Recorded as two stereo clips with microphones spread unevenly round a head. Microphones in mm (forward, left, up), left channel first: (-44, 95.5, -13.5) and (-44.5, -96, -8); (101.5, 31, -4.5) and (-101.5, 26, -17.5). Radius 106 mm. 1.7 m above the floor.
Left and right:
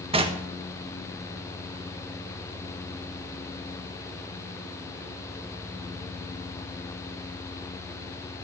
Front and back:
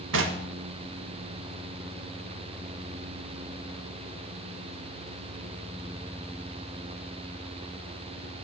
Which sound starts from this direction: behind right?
Knocking, at 0.1 s.